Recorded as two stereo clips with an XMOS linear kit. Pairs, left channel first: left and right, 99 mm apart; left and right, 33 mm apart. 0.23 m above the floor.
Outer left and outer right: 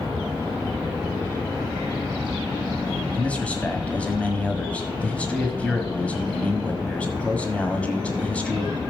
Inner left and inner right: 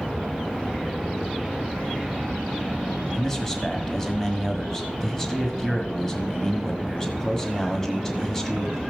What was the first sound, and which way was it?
A man speaking, 15° left (ahead or behind).